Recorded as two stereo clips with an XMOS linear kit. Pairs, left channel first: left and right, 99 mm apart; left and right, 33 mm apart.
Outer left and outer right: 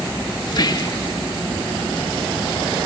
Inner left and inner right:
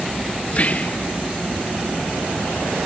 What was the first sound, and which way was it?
Whispering, 45° left (ahead or behind).